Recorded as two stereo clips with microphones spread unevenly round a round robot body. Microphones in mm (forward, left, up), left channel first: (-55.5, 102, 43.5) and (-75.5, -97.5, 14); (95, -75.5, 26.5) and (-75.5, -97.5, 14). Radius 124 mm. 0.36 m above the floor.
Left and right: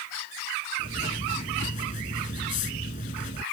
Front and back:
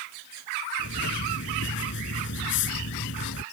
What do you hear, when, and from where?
0.8 s writing: 25° left